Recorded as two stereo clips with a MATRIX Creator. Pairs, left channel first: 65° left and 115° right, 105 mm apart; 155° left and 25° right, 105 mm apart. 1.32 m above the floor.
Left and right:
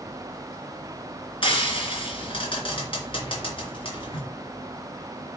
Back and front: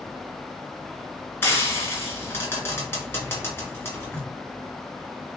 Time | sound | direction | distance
1.4 | frying | 90° left | 2.5 m